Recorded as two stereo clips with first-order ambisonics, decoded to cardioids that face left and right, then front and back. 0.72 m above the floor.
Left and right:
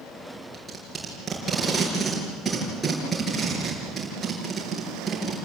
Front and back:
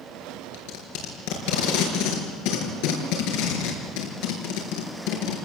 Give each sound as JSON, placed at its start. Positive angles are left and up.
{"t": 0.5, "sound": "tape being pulled", "azimuth_deg": -5, "distance_m": 5.5}